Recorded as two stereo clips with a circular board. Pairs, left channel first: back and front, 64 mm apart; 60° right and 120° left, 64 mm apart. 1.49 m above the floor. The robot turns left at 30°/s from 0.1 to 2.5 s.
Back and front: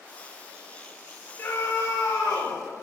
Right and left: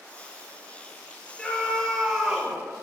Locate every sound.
1.4 s a scream: 130° right, 6 m; by 2.6 s 165° right, 6 m